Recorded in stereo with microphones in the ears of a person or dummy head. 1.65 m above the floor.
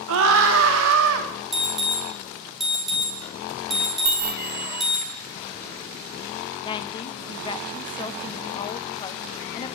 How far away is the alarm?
About 4.5 m.